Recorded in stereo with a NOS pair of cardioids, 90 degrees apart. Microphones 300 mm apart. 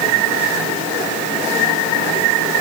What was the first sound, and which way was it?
Only background noise.